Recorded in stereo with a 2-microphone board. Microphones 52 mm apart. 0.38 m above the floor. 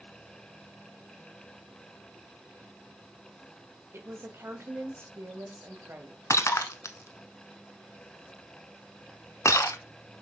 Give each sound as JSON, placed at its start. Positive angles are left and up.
{"t": 3.9, "sound": "a woman speaking", "side_deg": -55, "distance_m": 1.5}
{"t": 6.3, "sound": "breaking glass", "side_deg": 85, "distance_m": 0.8}